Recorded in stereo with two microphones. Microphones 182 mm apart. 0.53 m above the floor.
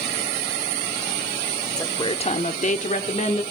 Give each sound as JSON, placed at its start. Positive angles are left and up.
{"t": 1.8, "sound": "a woman speaking", "side_deg": 20, "distance_m": 1.3}